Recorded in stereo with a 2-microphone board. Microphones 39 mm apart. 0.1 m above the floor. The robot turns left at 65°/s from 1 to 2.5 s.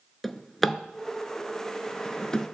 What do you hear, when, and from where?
0.2 s a drawer: 5° left (ahead or behind), 0.6 m; by 2.4 s 20° left (ahead or behind), 0.6 m